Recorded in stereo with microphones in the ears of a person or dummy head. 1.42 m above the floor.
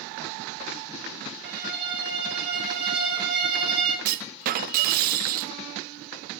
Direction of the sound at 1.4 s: 55° right (ahead or behind).